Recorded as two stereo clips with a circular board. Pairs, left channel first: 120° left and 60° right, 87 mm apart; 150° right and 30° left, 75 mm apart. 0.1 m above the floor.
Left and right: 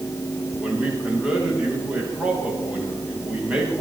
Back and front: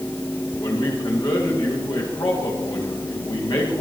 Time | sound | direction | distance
0.6 | a man speaking | 135° right | 10 m